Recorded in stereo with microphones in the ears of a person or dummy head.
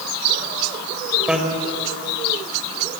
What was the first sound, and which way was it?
A bicycle bell, centre (ahead or behind).